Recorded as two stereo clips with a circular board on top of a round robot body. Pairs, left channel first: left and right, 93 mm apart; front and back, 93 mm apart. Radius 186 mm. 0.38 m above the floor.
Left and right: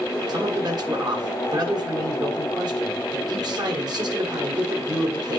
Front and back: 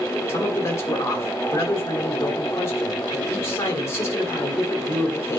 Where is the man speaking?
55° right, 2.5 m.